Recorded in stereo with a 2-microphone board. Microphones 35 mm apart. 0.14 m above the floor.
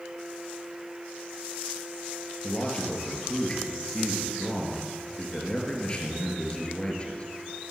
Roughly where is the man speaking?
Left.